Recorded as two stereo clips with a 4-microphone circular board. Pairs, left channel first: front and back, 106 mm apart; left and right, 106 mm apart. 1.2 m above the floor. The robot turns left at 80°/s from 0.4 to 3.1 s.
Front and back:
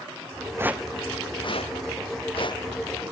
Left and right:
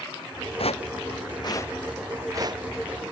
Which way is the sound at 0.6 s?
115° left.